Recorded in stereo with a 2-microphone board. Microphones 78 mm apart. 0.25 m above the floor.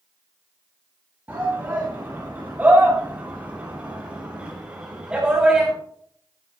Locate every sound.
1.3 s a shout: 25° right (ahead or behind), 8 m; by 5.7 s 10° right (ahead or behind), 6.5 m